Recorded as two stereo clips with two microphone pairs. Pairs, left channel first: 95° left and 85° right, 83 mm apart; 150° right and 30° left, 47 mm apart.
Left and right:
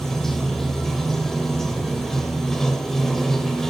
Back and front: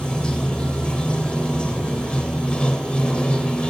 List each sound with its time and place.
0.0 s running water: straight behind, 0.9 m